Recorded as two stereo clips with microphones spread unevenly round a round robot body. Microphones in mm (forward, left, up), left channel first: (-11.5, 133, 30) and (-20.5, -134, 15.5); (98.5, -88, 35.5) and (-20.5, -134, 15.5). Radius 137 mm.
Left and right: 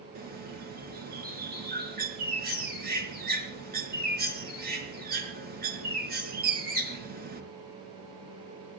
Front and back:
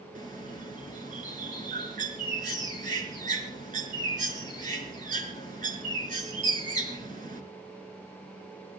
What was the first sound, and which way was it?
A bird, 150° right.